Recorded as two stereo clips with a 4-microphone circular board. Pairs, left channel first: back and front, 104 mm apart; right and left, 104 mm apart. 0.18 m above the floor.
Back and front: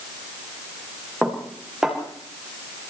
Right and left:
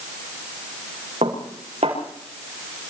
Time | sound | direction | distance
1.2 | dishes clattering | 90° left | 7.5 m